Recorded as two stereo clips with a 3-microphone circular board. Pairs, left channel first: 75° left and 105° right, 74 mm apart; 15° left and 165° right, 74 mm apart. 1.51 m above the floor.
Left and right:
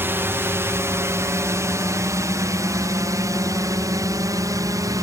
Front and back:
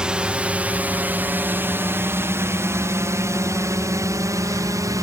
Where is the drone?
100° right; by 5.0 s 135° right.